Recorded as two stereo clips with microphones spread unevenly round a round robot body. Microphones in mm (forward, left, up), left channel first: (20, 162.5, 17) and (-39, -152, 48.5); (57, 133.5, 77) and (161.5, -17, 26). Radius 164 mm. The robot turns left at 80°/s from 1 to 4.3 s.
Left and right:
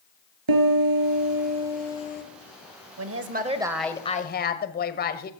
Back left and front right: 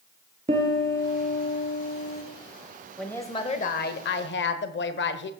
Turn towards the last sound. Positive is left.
turn(degrees=125)